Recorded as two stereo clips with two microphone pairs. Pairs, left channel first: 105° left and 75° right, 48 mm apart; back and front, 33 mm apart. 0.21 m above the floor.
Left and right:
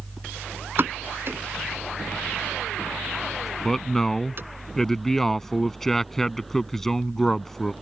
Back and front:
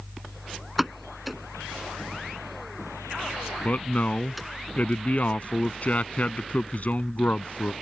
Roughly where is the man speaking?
Behind.